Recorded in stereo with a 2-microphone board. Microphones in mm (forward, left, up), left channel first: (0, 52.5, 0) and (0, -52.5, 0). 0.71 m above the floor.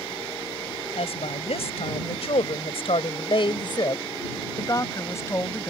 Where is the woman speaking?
70° left (ahead or behind); by 5.7 s 20° left (ahead or behind).